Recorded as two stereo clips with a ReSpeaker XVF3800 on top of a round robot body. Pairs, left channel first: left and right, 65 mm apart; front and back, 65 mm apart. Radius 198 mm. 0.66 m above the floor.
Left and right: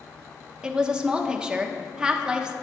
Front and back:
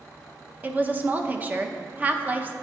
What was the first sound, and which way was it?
A woman speaking, 155° right.